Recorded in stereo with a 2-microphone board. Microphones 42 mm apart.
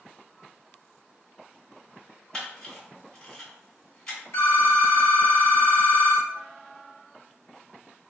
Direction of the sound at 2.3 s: 20° left (ahead or behind).